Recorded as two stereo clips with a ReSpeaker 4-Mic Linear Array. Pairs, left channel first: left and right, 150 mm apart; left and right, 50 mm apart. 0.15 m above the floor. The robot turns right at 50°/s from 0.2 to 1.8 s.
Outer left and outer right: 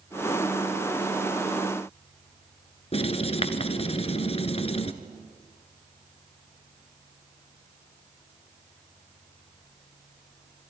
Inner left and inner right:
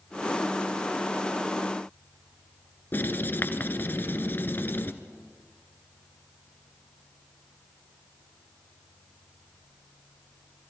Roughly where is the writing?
Left.